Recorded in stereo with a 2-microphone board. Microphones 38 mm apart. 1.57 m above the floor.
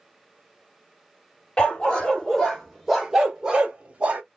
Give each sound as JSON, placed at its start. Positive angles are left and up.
{"t": 1.6, "sound": "a dog barking", "side_deg": 25, "distance_m": 1.4}